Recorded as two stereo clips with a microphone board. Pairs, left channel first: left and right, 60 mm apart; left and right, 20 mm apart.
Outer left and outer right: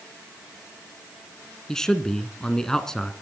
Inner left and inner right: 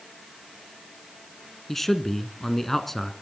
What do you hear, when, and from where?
1.7 s a man speaking: 10° left (ahead or behind), 1.5 m